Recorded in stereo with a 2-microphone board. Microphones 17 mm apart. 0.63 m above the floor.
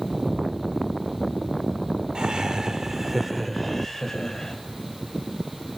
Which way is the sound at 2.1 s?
60° right (ahead or behind).